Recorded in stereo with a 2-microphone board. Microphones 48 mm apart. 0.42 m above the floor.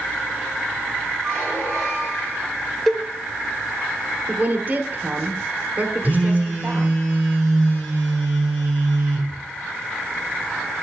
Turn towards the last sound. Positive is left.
turn(degrees=25)  # may be behind; listen again after turning